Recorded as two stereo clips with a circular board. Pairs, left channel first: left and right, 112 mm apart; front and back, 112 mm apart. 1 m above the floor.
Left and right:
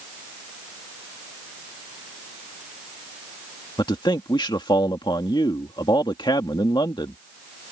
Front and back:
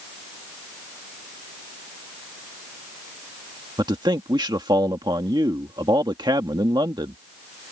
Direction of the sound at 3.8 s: 135° left.